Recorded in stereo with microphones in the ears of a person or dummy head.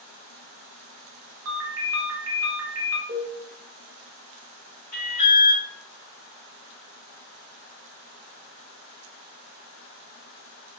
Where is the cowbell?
20° right (ahead or behind), 0.7 m.